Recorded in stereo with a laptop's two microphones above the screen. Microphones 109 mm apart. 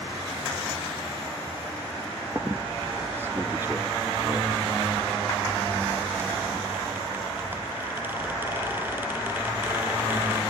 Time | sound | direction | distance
2.4 | a squeak | 20° right (ahead or behind) | 0.8 m